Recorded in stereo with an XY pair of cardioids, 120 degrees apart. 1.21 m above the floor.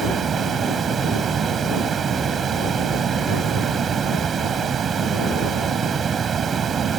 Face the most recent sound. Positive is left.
turn(degrees=-40)